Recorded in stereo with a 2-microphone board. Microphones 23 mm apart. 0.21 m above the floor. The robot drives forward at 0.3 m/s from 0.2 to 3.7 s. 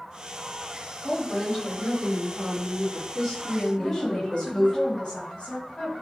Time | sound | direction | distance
1.0 | a woman speaking | 15° left (ahead or behind) | 1.5 m
3.8 | a woman speaking | 40° left (ahead or behind) | 1.4 m